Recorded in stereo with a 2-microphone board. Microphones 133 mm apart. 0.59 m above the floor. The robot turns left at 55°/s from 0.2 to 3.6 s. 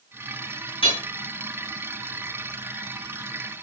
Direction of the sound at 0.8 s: 45° left (ahead or behind).